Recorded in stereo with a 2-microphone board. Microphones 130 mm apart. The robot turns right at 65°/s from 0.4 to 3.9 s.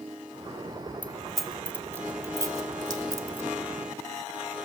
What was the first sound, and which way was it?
Keys jangling, 10° left (ahead or behind).